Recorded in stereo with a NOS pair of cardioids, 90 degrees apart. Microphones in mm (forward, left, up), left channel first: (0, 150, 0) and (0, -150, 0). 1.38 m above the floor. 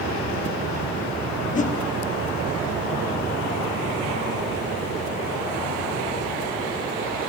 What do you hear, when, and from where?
1.6 s a whoosh: 25° left, 1.0 m